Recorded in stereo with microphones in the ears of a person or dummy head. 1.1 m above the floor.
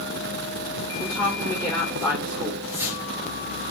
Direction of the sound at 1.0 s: Centre (ahead or behind).